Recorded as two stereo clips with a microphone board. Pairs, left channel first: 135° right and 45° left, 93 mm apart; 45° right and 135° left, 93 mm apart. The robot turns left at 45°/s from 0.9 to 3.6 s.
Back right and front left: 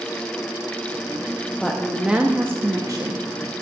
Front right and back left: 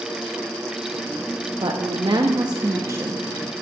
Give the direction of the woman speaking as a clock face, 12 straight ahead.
7 o'clock.